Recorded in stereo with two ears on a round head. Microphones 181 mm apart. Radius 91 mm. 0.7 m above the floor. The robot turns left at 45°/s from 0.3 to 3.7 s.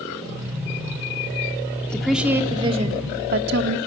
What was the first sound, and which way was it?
A woman speaking, 5° left.